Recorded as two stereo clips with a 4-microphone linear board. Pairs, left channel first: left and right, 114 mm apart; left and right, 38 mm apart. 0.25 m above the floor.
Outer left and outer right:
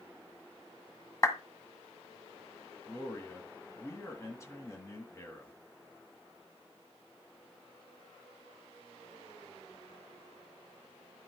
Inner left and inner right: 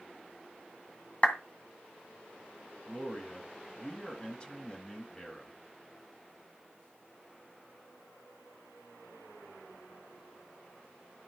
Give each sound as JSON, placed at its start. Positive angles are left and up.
{"t": 1.2, "sound": "a clap", "side_deg": 30, "distance_m": 1.8}
{"t": 2.9, "sound": "a man speaking", "side_deg": 25, "distance_m": 2.0}